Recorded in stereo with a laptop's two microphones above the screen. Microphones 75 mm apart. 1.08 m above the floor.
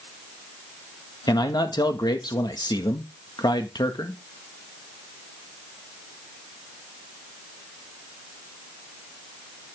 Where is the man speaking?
70° left (ahead or behind), 1.6 m.